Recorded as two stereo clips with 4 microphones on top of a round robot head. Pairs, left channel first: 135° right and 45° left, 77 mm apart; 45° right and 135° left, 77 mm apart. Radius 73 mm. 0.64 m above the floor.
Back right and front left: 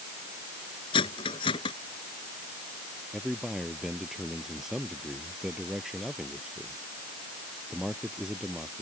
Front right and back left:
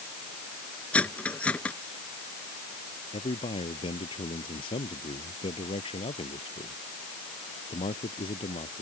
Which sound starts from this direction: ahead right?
A man speaking, at 3.1 s.